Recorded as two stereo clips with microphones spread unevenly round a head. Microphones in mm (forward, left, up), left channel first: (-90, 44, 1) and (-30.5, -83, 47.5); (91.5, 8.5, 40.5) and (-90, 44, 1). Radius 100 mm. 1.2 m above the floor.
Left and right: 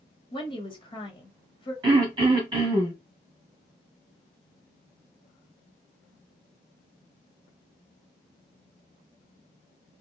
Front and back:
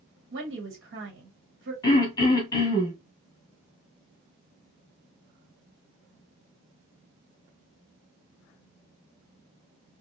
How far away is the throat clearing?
About 1.3 m.